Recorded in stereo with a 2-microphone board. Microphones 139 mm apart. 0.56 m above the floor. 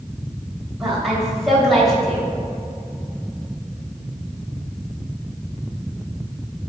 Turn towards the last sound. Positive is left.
turn(degrees=0)  # may be behind; listen again after turning